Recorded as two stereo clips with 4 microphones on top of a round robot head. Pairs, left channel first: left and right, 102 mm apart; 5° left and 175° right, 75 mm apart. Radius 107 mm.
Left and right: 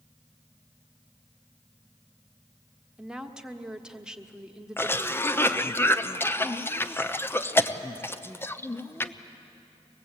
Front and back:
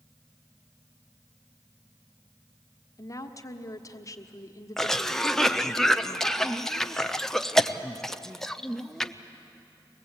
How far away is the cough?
About 1.0 m.